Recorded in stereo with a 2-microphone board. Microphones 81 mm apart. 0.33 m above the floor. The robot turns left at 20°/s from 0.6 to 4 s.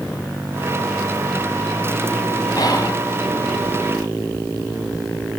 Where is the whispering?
55° left (ahead or behind), 3 m; by 3.0 s 50° left (ahead or behind), 3 m.